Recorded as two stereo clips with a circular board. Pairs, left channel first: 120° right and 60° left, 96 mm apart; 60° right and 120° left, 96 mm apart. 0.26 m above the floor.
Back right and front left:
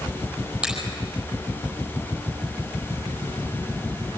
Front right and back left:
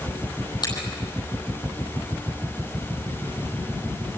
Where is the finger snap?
20° right, 9.5 m.